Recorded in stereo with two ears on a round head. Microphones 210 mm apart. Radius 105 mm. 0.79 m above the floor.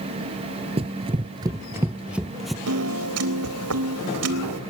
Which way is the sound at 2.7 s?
75° right (ahead or behind).